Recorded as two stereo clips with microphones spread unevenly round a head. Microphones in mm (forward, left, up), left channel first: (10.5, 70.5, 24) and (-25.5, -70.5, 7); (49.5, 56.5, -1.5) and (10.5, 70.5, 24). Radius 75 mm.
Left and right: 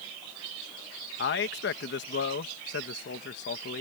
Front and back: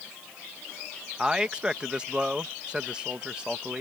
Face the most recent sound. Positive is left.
turn(degrees=80)